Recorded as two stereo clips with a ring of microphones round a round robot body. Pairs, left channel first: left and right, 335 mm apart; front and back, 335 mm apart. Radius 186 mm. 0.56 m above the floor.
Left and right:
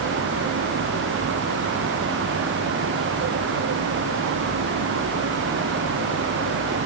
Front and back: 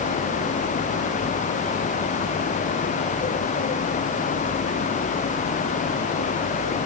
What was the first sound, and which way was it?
Only background noise.